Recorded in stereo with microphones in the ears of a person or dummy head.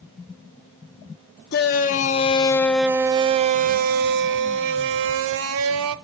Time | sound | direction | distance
1.5 | a shout | 50° left (ahead or behind) | 0.8 m